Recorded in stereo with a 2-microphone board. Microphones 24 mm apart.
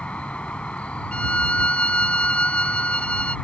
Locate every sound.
0.0 s an insect: 50° left (ahead or behind)
1.1 s a violin: 55° left (ahead or behind)